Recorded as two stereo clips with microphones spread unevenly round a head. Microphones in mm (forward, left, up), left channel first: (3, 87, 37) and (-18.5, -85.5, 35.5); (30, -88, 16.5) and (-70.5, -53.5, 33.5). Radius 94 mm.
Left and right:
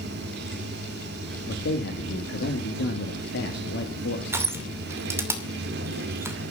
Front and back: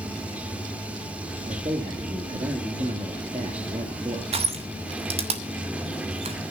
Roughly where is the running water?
Behind right.